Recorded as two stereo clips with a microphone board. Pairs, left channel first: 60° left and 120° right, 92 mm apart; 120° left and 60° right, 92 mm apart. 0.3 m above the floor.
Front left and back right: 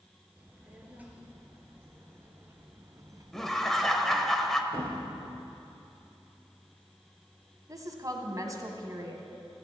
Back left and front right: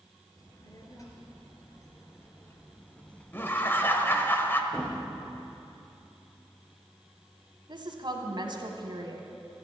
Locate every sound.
0.4 s a child speaking: 165° left, 3.5 m; by 4.3 s 130° right, 1.3 m
3.3 s laughter: 140° left, 1.3 m
4.7 s a thud: 165° right, 3.5 m
7.7 s a woman speaking: 75° right, 2 m